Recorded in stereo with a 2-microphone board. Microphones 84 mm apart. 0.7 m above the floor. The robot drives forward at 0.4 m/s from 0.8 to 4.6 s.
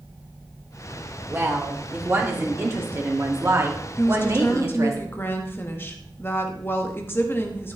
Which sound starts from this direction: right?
A woman speaking, at 1.3 s.